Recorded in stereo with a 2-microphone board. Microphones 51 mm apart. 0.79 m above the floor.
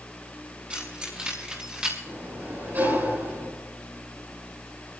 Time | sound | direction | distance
0.7 | keys jangling | 25° right (ahead or behind) | 5.5 m
2.1 | a sliding door | 40° right (ahead or behind) | 8 m